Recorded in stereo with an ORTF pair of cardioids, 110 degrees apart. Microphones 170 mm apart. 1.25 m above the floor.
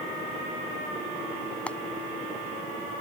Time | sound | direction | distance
1.7 | frying | 5° left | ?